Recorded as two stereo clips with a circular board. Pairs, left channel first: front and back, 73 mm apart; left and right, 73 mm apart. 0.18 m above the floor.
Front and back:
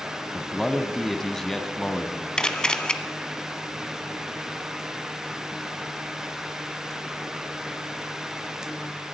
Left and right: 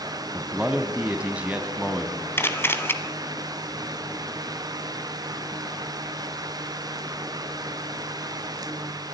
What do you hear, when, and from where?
0.3 s a man speaking: 75° right, 1.1 m
2.4 s a camera shutter: 70° left, 0.9 m